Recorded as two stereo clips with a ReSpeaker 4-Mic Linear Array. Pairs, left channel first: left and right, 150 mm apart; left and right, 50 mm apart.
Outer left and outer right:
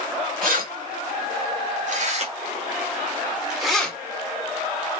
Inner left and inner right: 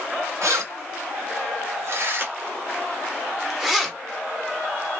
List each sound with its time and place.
0.4 s keys jangling: 70° right (ahead or behind), 1.6 m; by 4.0 s 10° left (ahead or behind), 0.9 m